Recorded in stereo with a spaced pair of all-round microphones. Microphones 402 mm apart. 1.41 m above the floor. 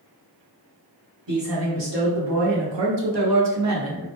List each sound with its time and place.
1.3 s a man speaking: 50° right (ahead or behind), 1.1 m; by 4.1 s 30° right (ahead or behind), 0.8 m